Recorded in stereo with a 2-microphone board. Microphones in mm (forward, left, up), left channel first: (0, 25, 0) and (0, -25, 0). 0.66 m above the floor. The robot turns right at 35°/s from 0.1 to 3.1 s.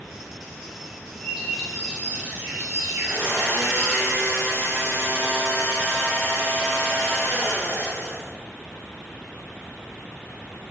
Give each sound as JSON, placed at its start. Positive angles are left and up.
{"t": 1.2, "sound": "a bird", "azimuth_deg": 180, "distance_m": 2.0}
{"t": 3.0, "sound": "a blender", "side_deg": -65, "distance_m": 2.5}